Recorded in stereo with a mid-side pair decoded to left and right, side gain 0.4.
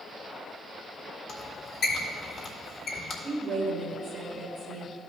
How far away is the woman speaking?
About 2.5 m.